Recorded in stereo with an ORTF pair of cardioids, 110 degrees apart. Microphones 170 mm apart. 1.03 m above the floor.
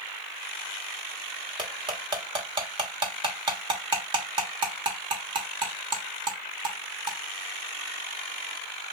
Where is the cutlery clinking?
25° right, 1.2 m.